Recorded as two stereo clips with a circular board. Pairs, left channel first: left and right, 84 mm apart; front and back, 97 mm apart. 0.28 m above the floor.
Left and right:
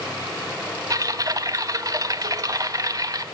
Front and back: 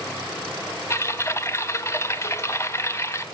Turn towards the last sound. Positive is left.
turn(degrees=-55)